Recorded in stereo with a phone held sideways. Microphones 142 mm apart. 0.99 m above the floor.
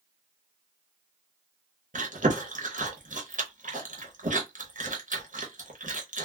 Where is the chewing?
65° right (ahead or behind), 0.8 m.